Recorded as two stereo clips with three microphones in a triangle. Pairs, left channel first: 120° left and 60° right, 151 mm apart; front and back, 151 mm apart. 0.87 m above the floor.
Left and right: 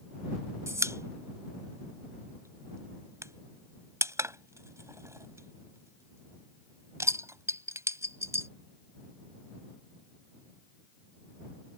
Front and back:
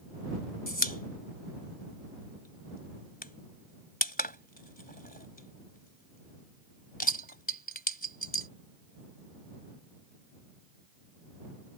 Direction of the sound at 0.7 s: 10° left.